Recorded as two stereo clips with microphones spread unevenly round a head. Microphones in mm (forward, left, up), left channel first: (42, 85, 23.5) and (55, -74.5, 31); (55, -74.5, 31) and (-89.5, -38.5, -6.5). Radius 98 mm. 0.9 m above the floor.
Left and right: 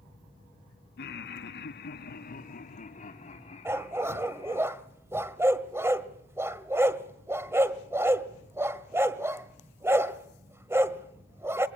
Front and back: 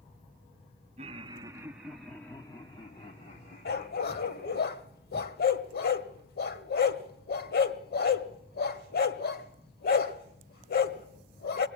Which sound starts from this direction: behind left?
Laughter, at 1.0 s.